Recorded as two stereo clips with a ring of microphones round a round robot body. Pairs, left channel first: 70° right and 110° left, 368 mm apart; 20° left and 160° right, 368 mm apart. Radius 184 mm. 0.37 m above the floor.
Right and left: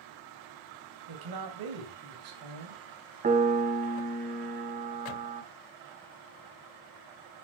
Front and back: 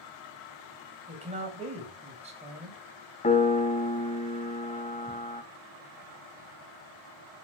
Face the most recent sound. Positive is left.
turn(degrees=70)